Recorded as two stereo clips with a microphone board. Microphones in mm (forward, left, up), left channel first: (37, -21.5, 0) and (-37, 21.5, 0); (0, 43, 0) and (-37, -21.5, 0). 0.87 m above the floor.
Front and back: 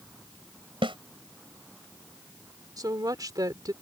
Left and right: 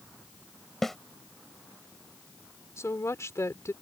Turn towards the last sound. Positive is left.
turn(degrees=110)